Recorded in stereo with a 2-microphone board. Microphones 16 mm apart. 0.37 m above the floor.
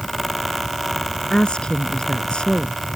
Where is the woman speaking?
75° left (ahead or behind).